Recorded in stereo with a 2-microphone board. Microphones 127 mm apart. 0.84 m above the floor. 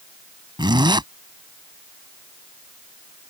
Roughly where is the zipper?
Right.